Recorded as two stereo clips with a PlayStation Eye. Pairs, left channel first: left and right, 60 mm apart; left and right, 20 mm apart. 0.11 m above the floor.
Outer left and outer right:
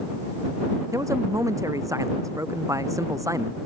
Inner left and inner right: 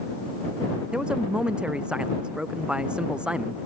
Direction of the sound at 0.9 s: 70° right (ahead or behind).